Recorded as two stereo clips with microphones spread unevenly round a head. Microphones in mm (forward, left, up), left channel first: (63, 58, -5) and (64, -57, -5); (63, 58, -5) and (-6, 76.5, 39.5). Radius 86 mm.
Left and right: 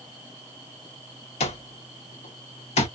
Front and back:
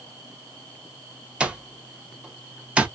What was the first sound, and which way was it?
An alarm clock, 115° left.